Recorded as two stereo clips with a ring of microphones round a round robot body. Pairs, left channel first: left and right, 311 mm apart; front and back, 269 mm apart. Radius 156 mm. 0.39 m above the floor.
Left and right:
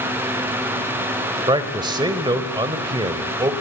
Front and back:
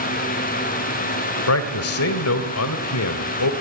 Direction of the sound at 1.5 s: 15° right.